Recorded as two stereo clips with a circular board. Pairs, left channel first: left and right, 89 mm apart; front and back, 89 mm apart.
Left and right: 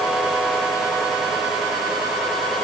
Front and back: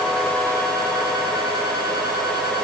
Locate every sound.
Only background noise.